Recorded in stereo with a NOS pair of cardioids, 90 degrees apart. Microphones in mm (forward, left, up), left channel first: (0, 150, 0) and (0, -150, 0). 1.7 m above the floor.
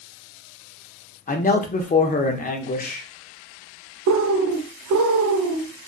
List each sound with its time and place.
1.3 s a man speaking: 30° left, 0.7 m
4.1 s a bird: 65° right, 0.7 m